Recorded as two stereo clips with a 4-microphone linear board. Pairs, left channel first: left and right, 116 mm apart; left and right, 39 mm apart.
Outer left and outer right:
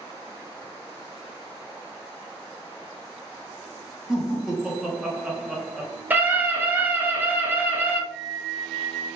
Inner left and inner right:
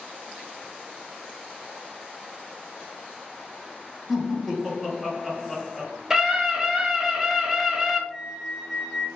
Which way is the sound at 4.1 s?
5° right (ahead or behind).